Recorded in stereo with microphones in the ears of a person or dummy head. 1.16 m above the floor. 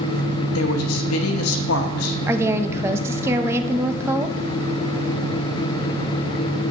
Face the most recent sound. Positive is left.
turn(degrees=-15)  # may be behind; listen again after turning